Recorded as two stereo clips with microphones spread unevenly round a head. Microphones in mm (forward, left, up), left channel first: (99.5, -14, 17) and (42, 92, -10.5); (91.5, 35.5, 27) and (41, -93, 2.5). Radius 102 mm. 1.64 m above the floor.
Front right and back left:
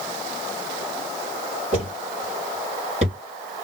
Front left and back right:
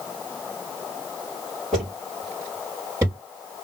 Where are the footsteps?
140° left, 2.0 m; by 3.2 s 170° left, 2.5 m.